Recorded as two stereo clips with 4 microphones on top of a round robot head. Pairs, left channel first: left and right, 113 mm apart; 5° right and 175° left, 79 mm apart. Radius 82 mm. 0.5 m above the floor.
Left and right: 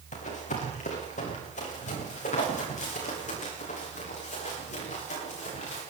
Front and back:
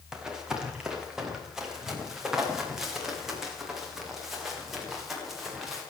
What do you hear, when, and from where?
0.1 s running footsteps: 95° left, 6.5 m; by 5.8 s 90° left, 11 m